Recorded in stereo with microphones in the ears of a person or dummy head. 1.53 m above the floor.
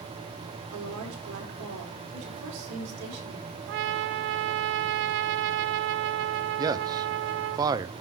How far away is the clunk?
No clunk in this recording.